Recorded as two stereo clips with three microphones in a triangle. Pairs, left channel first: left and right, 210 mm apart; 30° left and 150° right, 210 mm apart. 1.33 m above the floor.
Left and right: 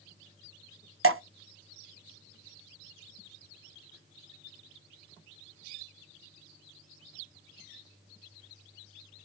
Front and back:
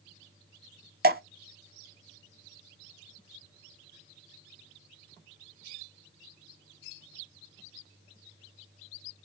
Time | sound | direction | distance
1.0 | dripping | 105° right | 0.6 m